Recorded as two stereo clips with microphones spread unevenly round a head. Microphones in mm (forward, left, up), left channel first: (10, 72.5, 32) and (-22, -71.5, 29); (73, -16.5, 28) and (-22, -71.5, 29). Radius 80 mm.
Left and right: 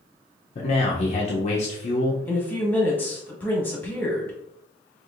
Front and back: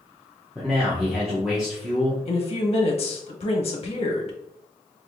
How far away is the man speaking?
About 0.6 m.